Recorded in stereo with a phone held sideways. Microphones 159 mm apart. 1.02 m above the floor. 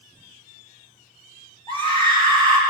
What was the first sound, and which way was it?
A scream, 30° right (ahead or behind).